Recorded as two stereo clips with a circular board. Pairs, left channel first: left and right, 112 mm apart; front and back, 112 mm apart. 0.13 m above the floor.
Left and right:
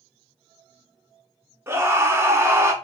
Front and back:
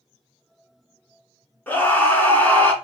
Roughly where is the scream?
Ahead right.